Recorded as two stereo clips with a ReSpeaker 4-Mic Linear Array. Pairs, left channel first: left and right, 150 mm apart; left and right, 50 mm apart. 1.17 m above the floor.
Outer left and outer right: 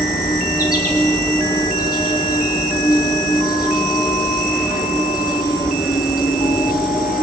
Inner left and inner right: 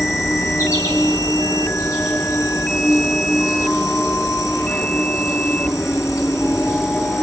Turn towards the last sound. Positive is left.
turn(degrees=85)